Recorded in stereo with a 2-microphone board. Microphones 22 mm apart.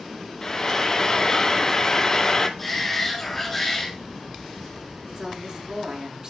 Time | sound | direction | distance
0.4 | frying | 25° left (ahead or behind) | 1.0 m
2.6 | a shout | 10° left (ahead or behind) | 4.5 m
5.1 | a woman speaking | 35° right (ahead or behind) | 6 m